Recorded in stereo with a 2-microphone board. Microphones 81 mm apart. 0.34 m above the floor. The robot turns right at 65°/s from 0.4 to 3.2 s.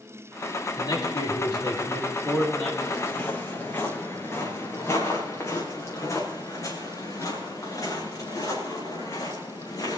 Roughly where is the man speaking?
Ahead left.